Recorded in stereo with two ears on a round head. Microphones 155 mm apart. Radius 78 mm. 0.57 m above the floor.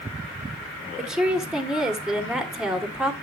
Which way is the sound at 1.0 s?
5° right (ahead or behind).